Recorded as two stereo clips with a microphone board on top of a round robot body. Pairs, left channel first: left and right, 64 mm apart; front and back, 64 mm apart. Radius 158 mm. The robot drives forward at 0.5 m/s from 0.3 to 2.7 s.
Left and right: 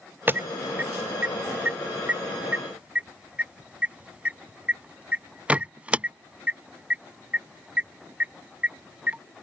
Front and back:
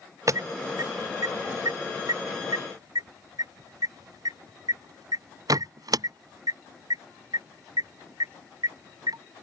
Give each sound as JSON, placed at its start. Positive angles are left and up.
{"t": 0.3, "sound": "an alarm", "azimuth_deg": -150}